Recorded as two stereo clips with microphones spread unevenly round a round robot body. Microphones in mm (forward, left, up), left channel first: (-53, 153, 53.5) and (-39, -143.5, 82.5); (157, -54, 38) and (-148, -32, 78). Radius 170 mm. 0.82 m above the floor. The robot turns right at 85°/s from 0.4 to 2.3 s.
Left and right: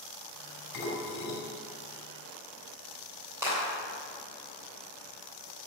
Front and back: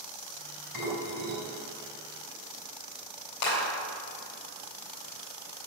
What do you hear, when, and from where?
0.7 s dishes clattering: 85° left, 5 m; by 1.4 s 140° left, 5 m
3.4 s a clap: 5° right, 3.5 m